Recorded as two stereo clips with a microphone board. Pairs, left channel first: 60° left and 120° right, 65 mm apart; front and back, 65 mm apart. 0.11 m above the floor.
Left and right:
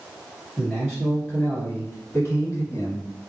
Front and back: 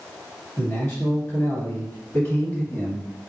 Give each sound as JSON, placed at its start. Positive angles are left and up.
{"t": 0.6, "sound": "a man speaking", "azimuth_deg": -35, "distance_m": 1.7}